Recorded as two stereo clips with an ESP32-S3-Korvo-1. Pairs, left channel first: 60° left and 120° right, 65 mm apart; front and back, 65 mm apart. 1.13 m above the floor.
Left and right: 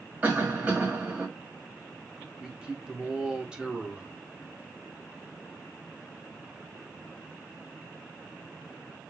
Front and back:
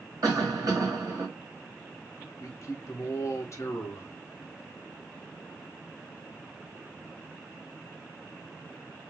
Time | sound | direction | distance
0.2 | a cough | 175° left | 1.5 m
2.4 | a man speaking | 40° right | 0.6 m